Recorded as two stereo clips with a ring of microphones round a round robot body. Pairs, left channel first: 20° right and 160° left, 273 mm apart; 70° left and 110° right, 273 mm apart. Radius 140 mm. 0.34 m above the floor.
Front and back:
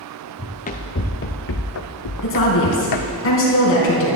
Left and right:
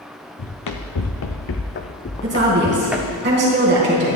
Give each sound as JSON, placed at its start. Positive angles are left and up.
{"t": 0.4, "sound": "running footsteps", "azimuth_deg": 45, "distance_m": 1.6}
{"t": 2.2, "sound": "a woman speaking", "azimuth_deg": -65, "distance_m": 4.0}